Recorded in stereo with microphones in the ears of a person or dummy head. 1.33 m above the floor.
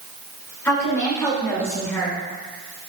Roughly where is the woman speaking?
Centre.